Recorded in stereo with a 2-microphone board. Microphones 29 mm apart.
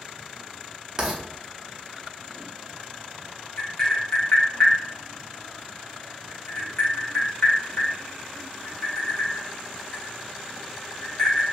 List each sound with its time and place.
1.0 s writing: 20° right (ahead or behind), 0.7 m
3.6 s tapping: 30° left (ahead or behind), 1.3 m